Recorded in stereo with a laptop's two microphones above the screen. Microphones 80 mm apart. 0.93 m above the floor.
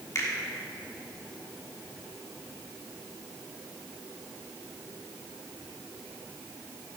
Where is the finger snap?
40° left (ahead or behind), 1.5 m.